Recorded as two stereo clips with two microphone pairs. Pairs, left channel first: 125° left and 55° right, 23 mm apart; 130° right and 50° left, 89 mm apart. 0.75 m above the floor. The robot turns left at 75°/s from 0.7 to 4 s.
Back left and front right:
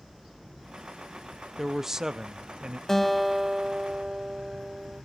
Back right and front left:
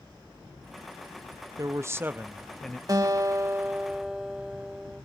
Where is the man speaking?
30° left, 0.7 m; by 2.8 s 65° right, 0.7 m.